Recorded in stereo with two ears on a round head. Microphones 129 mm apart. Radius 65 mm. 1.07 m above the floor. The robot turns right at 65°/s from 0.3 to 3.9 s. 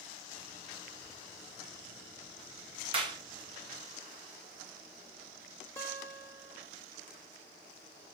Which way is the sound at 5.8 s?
15° left (ahead or behind).